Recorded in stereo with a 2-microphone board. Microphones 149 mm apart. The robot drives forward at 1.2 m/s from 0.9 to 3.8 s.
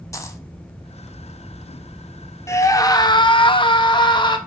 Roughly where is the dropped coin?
Left.